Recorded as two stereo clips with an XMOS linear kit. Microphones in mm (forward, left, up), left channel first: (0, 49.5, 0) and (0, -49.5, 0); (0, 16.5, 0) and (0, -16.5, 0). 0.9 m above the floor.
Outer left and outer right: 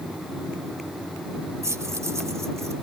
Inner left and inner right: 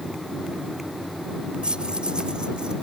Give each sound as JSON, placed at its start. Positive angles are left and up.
{"t": 1.6, "sound": "keys jangling", "side_deg": -30}